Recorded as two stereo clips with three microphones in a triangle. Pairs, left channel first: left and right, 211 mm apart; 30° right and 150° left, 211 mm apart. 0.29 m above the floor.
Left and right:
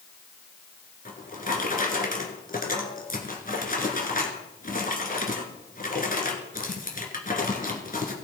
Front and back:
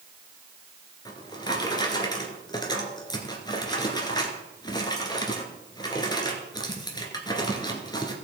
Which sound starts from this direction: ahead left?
A drawer, at 1.1 s.